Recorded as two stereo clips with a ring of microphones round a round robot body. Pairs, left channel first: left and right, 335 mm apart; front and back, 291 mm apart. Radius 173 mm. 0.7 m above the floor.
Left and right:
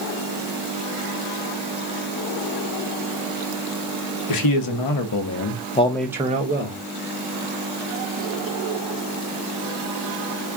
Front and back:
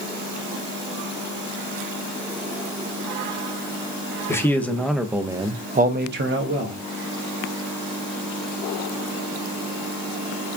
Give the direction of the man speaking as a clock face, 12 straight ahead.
9 o'clock.